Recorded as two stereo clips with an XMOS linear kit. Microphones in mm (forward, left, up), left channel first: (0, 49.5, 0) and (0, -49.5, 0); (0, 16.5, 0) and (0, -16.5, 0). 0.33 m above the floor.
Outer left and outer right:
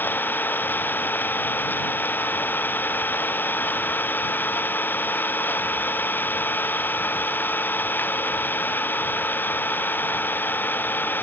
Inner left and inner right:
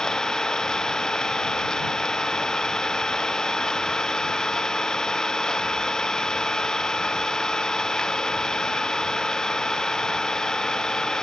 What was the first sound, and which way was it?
An engine running, 20° left (ahead or behind).